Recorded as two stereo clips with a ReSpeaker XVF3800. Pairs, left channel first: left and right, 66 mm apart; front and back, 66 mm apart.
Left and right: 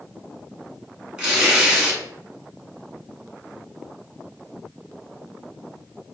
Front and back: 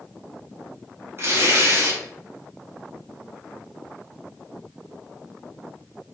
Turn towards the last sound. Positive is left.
turn(degrees=-165)